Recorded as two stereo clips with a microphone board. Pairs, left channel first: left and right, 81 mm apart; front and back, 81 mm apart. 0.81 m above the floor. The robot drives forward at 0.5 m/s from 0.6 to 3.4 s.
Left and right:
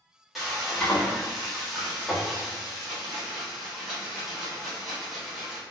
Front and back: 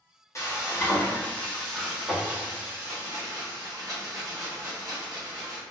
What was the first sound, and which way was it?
Frying, straight ahead.